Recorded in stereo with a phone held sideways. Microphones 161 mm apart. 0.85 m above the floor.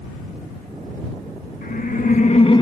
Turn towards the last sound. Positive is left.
turn(degrees=25)  # may be behind; listen again after turning